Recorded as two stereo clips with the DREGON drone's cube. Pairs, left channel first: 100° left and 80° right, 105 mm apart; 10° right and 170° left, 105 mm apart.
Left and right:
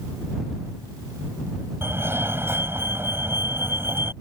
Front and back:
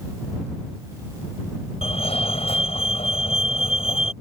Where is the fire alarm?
15° right.